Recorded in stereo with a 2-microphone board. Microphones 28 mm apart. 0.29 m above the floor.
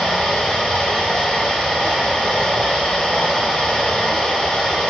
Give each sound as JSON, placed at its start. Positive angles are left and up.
{"t": 0.0, "sound": "running water", "side_deg": 50, "distance_m": 1.1}